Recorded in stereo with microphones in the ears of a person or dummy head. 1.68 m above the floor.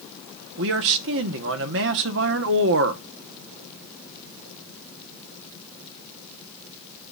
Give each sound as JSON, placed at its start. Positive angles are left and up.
{"t": 0.6, "sound": "a man speaking", "side_deg": -65, "distance_m": 1.1}